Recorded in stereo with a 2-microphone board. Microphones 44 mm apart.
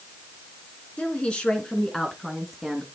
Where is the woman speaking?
30° left (ahead or behind), 2 m; by 2.9 s 5° right (ahead or behind), 1.9 m.